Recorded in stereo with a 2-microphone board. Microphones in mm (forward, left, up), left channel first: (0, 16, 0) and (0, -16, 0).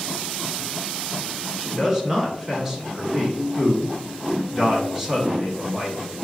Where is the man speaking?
15° right (ahead or behind), 1.1 m.